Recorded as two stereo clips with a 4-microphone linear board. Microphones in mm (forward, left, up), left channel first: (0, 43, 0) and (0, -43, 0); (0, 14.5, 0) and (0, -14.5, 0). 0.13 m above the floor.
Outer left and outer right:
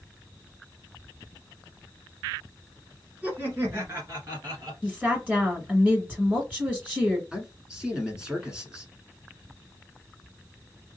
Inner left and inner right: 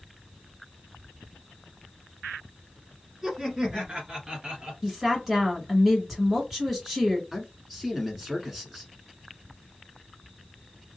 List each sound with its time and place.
3.2 s laughter: 20° right (ahead or behind), 1.5 m; by 4.7 s 50° right (ahead or behind), 1.8 m
4.8 s a woman speaking: 20° right (ahead or behind), 1.8 m
7.3 s a man speaking: 10° right (ahead or behind), 1.3 m